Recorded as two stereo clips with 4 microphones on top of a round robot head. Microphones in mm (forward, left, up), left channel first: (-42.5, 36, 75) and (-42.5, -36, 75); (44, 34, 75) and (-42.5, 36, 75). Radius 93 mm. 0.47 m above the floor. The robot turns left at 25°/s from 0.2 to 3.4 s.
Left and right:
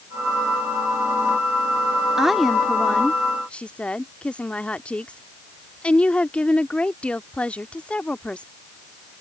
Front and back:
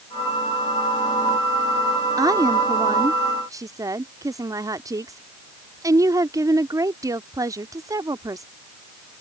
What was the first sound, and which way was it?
A woman speaking, 170° right.